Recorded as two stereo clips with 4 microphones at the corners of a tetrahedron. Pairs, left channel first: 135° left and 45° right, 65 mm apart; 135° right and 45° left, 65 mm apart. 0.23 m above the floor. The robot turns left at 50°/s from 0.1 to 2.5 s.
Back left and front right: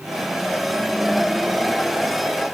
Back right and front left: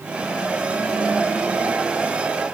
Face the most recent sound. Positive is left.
No sound to turn to.